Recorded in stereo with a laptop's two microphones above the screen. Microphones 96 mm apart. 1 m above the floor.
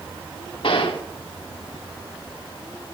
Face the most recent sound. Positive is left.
turn(degrees=65)  # may be behind; listen again after turning